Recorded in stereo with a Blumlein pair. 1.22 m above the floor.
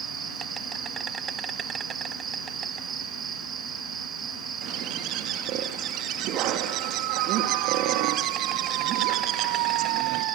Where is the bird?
40° right, 2 m.